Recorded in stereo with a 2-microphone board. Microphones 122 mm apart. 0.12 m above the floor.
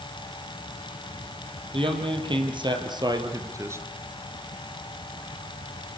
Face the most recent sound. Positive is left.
turn(degrees=-20)  # may be behind; listen again after turning